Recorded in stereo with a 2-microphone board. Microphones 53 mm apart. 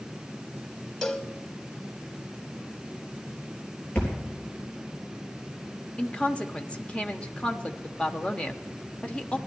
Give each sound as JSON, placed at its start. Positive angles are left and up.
{"t": 1.0, "sound": "a cowbell", "side_deg": 10, "distance_m": 0.7}
{"t": 4.0, "sound": "a thud", "side_deg": 30, "distance_m": 4.0}
{"t": 6.0, "sound": "a woman speaking", "side_deg": 20, "distance_m": 0.9}